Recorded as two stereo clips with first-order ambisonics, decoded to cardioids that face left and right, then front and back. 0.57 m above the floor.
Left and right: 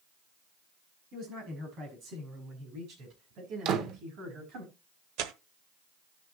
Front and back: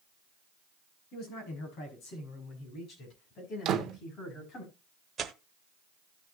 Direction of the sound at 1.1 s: 35° right.